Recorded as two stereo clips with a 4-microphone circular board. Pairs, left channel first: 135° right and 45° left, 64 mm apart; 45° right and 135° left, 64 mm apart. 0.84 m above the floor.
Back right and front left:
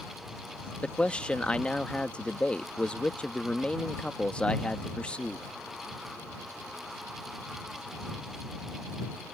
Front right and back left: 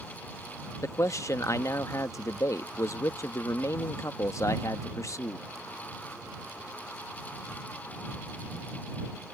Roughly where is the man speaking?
Ahead right.